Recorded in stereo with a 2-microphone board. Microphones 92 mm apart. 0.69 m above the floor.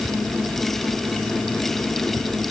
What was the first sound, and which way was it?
Only background noise.